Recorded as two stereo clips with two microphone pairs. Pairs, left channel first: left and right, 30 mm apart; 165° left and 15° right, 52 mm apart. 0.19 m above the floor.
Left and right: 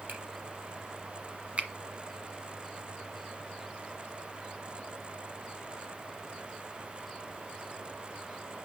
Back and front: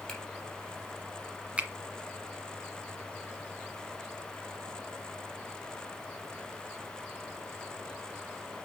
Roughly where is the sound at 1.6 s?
Right.